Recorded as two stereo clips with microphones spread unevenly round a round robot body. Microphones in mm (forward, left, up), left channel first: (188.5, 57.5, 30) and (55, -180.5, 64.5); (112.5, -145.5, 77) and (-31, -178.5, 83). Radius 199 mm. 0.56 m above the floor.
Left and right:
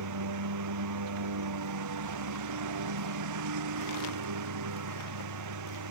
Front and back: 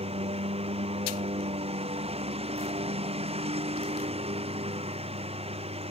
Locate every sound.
0.0 s a lawn mower: 120° right